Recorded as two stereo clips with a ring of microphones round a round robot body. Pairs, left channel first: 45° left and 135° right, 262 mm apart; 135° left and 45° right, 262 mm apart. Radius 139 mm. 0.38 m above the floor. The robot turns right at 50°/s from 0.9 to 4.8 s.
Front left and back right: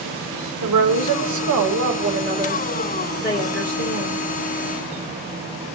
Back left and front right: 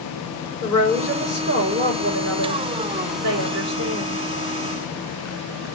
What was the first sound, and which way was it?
A woman speaking, 140° right.